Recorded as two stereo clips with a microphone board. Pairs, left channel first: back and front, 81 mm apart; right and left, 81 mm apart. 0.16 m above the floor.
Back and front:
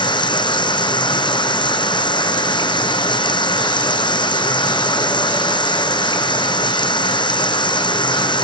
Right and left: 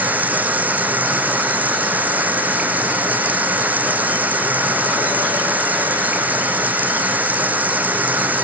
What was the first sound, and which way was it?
Running water, 160° left.